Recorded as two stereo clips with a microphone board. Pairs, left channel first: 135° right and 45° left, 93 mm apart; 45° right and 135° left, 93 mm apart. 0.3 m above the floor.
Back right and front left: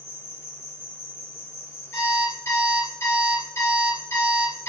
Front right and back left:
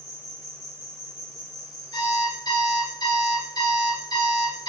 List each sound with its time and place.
0.0 s an insect: 85° right, 1.8 m
1.9 s an alarm clock: 75° right, 3.5 m